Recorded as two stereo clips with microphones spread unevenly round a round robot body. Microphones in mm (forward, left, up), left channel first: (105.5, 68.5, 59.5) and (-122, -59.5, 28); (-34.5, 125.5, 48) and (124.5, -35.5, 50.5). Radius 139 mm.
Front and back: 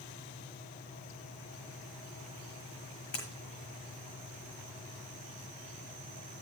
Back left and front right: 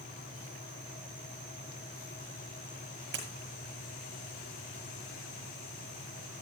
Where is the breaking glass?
10° right, 7.5 m.